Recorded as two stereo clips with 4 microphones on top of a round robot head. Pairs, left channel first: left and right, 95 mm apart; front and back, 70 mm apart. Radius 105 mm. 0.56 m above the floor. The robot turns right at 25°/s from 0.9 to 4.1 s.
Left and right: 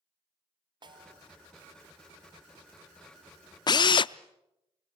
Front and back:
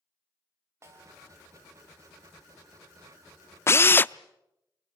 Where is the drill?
50° left, 0.5 m; by 4.1 s 60° left, 0.5 m.